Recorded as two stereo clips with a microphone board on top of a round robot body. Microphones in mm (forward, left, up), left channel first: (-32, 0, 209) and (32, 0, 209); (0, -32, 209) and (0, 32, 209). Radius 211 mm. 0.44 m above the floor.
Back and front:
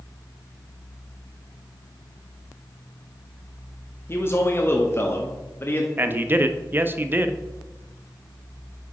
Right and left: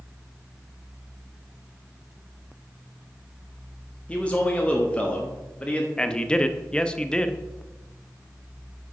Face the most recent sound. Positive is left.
turn(degrees=-25)